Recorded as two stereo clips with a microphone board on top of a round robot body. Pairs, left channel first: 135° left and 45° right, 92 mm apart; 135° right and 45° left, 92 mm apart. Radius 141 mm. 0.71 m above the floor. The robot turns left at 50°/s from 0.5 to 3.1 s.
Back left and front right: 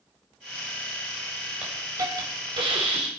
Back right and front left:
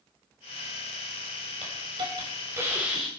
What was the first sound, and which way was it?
A hiss, 30° left.